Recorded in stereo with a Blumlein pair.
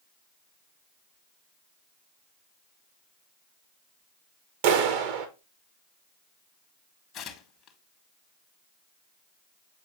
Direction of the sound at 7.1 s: 25° left.